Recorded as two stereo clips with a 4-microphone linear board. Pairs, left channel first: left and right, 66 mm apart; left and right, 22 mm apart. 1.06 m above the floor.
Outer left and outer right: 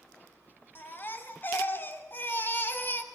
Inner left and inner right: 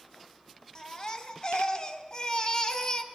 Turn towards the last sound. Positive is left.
turn(degrees=30)  # may be behind; listen again after turning